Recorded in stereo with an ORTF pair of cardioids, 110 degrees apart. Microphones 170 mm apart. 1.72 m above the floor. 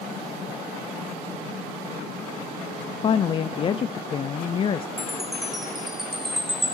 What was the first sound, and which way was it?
A woman speaking, 30° left.